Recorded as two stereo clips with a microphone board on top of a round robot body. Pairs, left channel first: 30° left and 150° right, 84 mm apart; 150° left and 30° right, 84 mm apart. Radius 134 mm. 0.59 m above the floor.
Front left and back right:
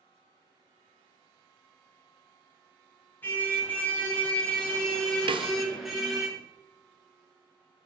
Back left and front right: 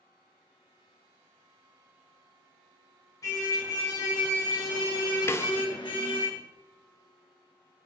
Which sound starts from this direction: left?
A car horn, at 3.2 s.